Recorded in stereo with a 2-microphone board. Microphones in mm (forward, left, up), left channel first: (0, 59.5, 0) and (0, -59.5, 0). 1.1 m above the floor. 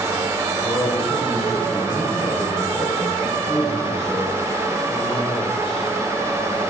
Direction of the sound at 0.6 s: 55° left (ahead or behind).